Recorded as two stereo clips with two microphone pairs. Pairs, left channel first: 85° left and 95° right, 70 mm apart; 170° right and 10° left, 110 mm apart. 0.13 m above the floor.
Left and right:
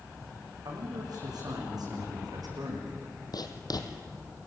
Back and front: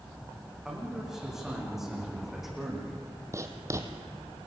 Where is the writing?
70° left, 2.5 m.